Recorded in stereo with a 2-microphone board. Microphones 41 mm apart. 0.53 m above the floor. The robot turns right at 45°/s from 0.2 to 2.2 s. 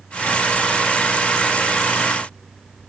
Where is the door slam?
I don't hear a door slam.